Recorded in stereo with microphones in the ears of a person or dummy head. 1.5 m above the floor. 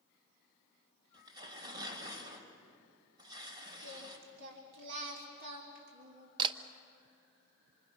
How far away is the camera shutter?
About 0.8 m.